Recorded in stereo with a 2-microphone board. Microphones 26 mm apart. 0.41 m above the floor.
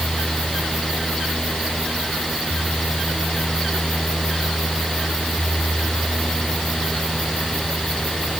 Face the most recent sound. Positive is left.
No sound to turn to.